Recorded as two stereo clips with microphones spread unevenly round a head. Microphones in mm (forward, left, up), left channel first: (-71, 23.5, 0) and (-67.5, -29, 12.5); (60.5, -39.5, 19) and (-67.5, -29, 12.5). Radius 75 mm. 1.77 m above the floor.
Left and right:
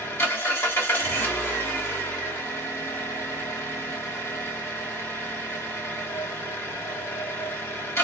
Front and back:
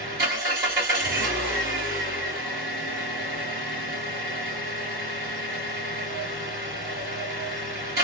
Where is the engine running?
125° left, 1.5 m.